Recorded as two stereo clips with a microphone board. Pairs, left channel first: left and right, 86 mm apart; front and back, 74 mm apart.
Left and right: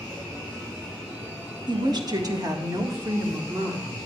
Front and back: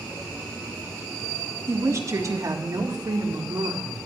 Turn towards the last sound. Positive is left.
turn(degrees=-150)